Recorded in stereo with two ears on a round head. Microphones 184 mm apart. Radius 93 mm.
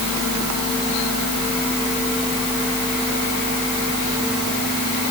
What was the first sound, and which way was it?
Only background noise.